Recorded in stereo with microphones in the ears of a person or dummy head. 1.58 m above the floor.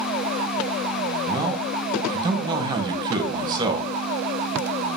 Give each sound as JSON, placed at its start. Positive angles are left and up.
{"t": 1.3, "sound": "a man speaking", "side_deg": -25, "distance_m": 1.0}